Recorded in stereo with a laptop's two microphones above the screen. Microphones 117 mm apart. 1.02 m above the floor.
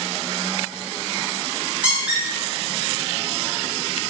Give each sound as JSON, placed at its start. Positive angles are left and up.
{"t": 1.8, "sound": "a squeak", "side_deg": -10, "distance_m": 0.9}